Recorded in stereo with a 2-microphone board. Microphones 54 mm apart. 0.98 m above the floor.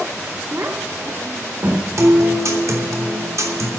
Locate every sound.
0.5 s a child speaking: 45° right (ahead or behind), 1.6 m; by 1.9 s 40° right (ahead or behind), 2.5 m
2.0 s a guitar: 65° right (ahead or behind), 3 m